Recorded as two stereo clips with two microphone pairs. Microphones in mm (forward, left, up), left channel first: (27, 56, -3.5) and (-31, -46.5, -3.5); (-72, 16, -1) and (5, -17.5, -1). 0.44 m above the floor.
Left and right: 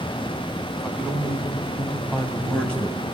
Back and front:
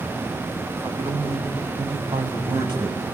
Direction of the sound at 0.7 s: 35° right.